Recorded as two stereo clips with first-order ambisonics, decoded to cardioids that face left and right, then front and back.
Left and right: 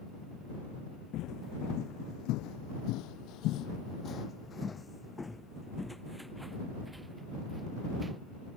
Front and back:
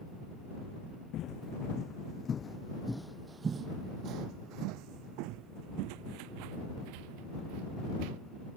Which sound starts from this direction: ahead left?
Footsteps, at 1.1 s.